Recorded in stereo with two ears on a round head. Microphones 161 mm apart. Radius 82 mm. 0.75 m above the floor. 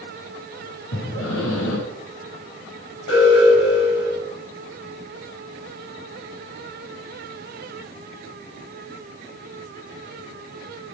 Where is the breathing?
90° left, 5.5 m.